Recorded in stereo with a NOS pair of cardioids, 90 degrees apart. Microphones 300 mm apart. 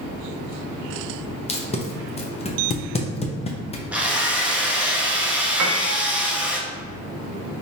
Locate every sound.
1.5 s tape being pulled: 20° left, 0.8 m
3.9 s a drill: 5° right, 0.9 m
5.6 s a piano: 65° right, 0.8 m